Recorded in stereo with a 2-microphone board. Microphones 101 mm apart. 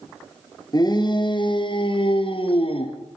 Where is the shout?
40° left (ahead or behind), 5 m; by 3.0 s 65° left (ahead or behind), 6.5 m.